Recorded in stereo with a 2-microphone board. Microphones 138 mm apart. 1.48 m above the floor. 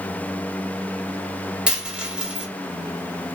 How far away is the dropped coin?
About 1.5 m.